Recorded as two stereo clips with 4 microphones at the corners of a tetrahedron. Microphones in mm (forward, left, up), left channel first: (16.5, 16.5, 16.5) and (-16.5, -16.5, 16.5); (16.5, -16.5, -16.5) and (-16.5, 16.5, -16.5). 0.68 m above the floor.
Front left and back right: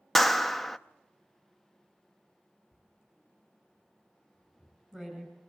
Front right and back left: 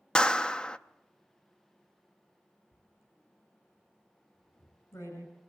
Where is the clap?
30° right, 0.5 m.